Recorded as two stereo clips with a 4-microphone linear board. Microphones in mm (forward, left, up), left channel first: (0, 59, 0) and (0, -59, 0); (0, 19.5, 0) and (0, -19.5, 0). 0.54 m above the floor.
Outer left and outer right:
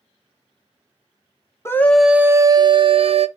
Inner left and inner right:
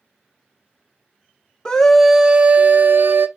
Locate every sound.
1.6 s a scream: 20° left (ahead or behind), 0.6 m; by 3.3 s 55° right (ahead or behind), 1.0 m